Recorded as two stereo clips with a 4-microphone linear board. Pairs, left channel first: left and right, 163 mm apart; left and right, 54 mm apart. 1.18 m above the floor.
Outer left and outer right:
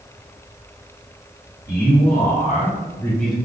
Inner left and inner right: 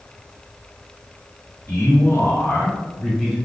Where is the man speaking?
65° left (ahead or behind), 1.2 m; by 3.4 s 5° right (ahead or behind), 0.6 m.